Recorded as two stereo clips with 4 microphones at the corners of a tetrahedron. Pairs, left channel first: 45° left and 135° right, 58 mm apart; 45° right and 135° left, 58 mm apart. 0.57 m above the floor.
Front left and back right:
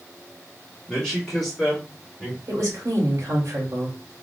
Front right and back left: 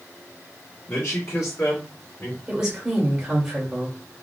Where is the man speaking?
35° right, 1.7 m; by 2.4 s 55° right, 2 m.